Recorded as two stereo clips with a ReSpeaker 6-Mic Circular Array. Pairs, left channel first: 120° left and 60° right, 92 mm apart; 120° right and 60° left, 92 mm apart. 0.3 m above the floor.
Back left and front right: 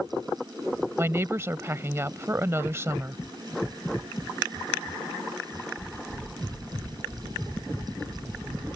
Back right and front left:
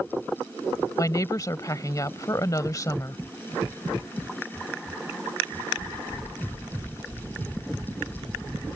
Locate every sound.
1.0 s a woman speaking: 105° right